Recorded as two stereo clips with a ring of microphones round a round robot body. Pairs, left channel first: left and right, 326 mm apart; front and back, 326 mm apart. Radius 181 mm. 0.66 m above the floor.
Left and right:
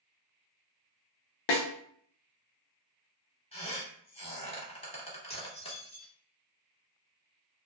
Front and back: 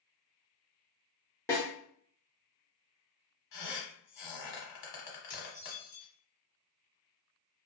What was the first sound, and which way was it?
A snare drum, 85° left.